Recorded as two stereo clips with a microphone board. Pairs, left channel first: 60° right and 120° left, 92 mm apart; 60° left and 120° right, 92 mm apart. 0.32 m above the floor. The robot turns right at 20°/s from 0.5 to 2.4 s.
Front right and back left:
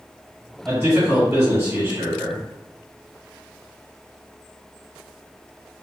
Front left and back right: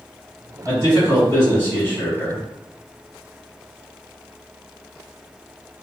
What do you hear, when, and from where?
0.7 s a man speaking: 80° left, 1.5 m; by 2.5 s 115° left, 1.5 m